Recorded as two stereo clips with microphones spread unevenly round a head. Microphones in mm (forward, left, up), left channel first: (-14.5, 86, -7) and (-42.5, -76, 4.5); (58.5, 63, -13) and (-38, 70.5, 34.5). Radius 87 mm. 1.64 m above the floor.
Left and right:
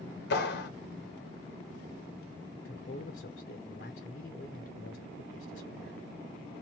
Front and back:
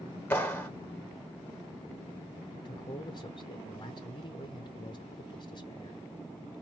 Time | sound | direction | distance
0.3 | a clap | 80° left | 1.5 m
2.5 | a man speaking | 50° left | 0.9 m